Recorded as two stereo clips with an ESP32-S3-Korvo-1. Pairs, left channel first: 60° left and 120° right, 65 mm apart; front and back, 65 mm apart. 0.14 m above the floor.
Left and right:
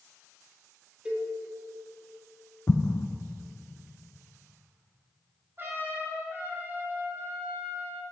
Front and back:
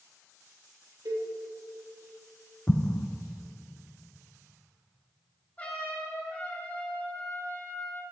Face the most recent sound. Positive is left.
turn(degrees=-70)